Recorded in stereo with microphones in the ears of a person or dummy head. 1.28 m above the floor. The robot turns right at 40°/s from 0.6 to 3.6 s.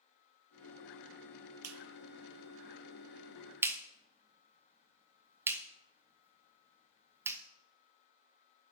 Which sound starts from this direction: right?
A clap, at 1.6 s.